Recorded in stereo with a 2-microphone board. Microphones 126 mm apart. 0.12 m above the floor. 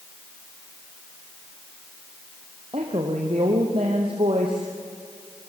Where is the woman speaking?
45° right (ahead or behind), 3.5 m.